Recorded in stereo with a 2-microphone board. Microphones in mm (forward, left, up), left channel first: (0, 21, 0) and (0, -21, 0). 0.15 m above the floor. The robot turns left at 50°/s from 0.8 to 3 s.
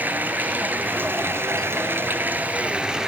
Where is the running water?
55° right, 1.4 m; by 3.1 s 165° right, 1.4 m.